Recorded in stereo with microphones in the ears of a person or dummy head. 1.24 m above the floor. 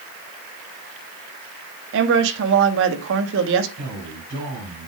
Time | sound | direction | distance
1.9 | a woman speaking | 70° right (ahead or behind) | 2.0 m
3.8 | a man speaking | 45° right (ahead or behind) | 5 m